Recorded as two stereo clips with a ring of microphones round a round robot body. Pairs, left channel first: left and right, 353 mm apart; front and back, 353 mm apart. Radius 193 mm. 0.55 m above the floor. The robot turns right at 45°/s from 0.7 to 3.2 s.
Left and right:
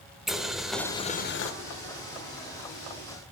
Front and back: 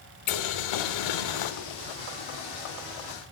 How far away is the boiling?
About 0.6 m.